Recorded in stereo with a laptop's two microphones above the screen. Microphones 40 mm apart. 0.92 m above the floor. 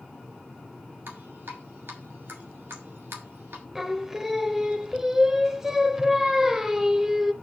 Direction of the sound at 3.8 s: 10° right (ahead or behind).